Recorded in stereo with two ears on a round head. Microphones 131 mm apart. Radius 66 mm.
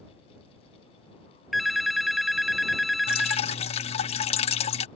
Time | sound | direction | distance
1.5 | a phone ringing | centre (ahead or behind) | ?
3.1 | dripping | 45° left (ahead or behind) | ?